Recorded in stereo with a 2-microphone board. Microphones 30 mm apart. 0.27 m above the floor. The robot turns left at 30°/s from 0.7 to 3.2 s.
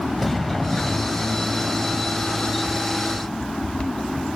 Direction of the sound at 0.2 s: 5° left (ahead or behind).